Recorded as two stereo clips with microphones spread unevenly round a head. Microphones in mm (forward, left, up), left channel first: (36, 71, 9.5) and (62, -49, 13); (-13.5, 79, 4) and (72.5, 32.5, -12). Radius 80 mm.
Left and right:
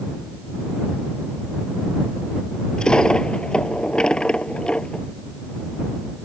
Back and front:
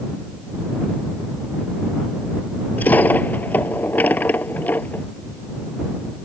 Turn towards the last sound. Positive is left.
turn(degrees=-175)